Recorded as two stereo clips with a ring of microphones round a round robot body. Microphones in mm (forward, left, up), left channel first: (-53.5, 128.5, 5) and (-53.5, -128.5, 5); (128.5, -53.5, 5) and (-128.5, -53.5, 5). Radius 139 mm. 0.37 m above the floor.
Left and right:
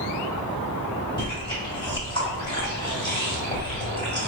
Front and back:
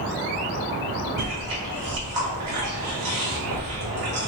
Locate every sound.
1.2 s chewing: 155° left, 1.8 m